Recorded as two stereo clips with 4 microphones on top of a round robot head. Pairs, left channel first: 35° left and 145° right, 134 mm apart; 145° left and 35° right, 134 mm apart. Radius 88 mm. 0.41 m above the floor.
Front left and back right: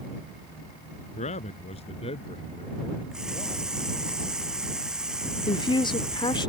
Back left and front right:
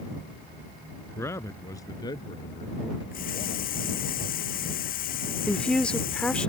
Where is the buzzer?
I don't hear a buzzer.